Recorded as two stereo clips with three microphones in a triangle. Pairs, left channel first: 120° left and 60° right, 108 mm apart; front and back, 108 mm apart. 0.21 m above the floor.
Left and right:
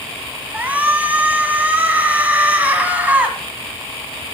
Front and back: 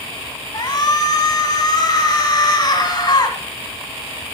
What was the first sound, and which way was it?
A shout, 5° left.